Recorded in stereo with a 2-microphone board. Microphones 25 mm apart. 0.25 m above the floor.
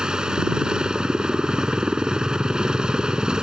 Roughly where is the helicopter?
Right.